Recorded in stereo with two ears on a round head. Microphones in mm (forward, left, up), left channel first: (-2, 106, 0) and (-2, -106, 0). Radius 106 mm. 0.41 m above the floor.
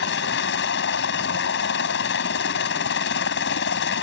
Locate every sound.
0.0 s a helicopter: 50° left (ahead or behind)